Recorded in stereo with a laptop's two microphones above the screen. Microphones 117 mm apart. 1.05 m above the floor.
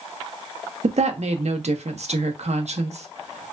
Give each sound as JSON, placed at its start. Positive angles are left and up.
{"t": 0.8, "sound": "a woman speaking", "side_deg": -70, "distance_m": 0.6}